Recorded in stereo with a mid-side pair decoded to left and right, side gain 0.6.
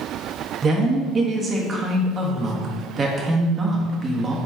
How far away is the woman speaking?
About 0.6 m.